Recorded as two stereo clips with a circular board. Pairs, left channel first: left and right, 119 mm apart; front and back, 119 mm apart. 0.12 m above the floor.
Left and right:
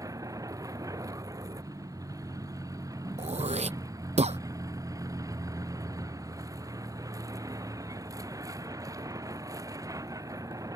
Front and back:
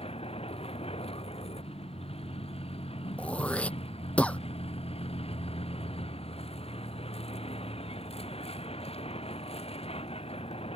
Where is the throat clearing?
80° right.